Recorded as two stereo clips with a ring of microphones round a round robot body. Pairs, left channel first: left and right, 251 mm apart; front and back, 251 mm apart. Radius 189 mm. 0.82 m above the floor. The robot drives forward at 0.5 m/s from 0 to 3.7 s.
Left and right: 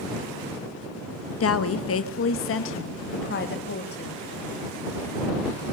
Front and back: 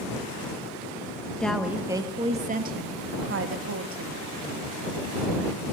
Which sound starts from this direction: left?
A woman speaking, at 1.4 s.